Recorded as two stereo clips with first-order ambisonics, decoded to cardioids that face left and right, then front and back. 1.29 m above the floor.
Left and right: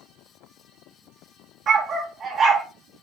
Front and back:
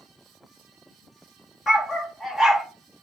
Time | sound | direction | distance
1.7 | a dog barking | 55° right | 1.2 m